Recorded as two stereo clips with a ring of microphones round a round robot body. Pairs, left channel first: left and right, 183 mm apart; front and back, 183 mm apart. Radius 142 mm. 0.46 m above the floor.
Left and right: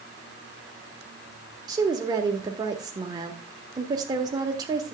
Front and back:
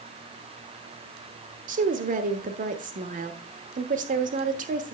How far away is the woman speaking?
About 1.0 m.